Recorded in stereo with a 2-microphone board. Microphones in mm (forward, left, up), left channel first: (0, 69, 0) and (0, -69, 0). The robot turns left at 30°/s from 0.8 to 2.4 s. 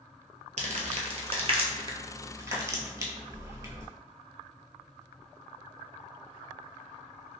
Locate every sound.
0.6 s crumpling: 55° right (ahead or behind), 0.6 m; by 3.9 s 25° right (ahead or behind), 0.6 m